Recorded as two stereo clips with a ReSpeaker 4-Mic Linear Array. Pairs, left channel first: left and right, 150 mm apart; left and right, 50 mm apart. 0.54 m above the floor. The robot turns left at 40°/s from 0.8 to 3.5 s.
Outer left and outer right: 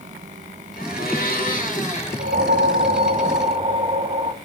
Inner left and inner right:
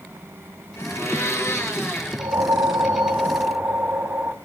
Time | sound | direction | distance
0.8 | a blender | 95° left | 7.5 m
2.2 | a whoosh | 95° right | 1.4 m